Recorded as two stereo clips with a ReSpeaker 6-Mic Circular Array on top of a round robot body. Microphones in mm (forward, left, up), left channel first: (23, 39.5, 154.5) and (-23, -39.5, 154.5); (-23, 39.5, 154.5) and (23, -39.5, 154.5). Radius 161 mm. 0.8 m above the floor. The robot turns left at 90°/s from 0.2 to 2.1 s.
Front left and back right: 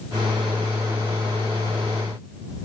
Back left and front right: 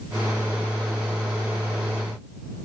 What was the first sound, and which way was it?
Only background noise.